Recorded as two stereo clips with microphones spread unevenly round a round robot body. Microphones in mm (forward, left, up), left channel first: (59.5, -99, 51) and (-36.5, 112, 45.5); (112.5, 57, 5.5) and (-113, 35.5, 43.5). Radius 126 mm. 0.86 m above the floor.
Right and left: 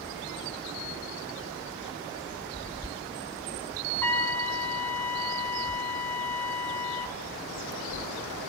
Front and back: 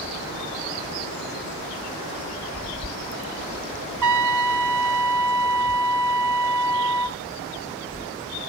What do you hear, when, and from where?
4.0 s a trumpet: 150° right, 0.6 m